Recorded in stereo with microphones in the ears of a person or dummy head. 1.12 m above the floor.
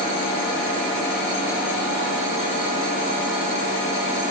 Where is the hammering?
No hammering in this recording.